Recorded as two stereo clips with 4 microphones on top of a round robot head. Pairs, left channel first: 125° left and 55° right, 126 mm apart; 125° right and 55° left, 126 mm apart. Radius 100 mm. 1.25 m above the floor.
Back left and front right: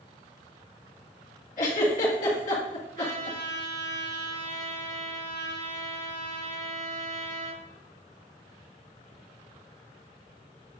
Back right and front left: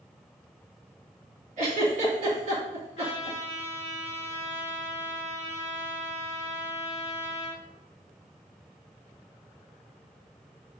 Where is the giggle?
95° left, 2.5 m.